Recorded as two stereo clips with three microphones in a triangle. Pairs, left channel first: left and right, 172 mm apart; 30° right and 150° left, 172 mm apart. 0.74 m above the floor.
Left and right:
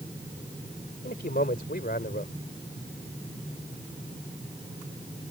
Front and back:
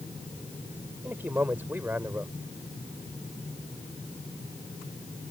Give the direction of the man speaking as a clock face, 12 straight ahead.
10 o'clock.